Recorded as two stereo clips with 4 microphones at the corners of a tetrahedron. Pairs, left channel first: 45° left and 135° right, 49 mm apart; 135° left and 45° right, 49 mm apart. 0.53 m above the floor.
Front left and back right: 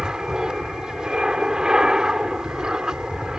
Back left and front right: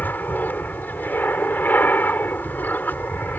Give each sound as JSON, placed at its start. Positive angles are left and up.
{"t": 0.0, "sound": "an aircraft", "azimuth_deg": 155}